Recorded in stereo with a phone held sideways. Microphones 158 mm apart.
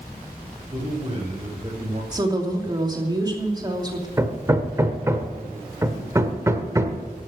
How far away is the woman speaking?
About 2.5 m.